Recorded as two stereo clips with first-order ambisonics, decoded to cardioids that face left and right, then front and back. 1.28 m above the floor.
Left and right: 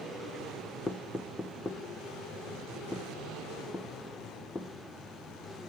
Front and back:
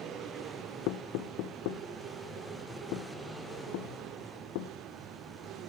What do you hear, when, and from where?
0.9 s knocking: 15° left, 0.5 m